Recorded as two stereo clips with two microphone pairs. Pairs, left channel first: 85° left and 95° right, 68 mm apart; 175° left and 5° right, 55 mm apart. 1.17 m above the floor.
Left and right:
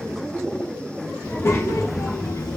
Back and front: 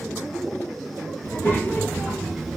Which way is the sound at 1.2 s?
135° left.